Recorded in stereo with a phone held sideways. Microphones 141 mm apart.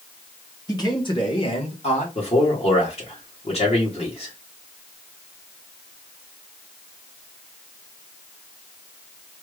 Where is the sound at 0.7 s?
25° left (ahead or behind), 1.6 m; by 2.0 s 50° left (ahead or behind), 1.7 m.